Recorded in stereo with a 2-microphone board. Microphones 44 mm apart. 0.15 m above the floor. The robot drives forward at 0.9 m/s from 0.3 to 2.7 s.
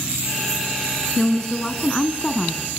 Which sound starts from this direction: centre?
A woman speaking, at 1.2 s.